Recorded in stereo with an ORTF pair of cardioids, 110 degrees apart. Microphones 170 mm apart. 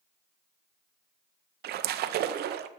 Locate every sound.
1.6 s a splash: 65° right, 0.6 m